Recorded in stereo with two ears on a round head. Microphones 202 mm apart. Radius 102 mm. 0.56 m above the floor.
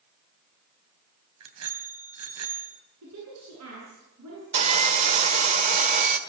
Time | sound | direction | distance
1.4 | a bicycle bell | 75° right (ahead or behind) | 3 m
3.0 | a woman speaking | 85° right | 8.5 m
4.5 | sawing | 30° right (ahead or behind) | 1.4 m